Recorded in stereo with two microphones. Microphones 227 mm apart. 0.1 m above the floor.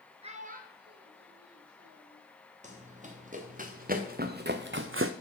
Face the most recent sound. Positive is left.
turn(degrees=-70)  # may be behind; listen again after turning